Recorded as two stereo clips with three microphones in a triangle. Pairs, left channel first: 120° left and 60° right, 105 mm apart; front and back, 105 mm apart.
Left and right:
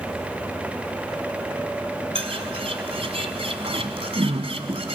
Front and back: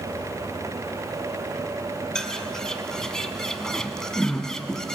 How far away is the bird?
About 1.3 m.